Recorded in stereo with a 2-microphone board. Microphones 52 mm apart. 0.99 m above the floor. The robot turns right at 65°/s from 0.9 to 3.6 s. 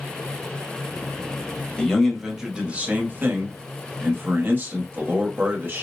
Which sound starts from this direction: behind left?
A man speaking, at 1.8 s.